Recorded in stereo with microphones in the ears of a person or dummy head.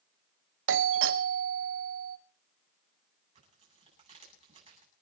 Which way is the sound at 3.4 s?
35° right (ahead or behind).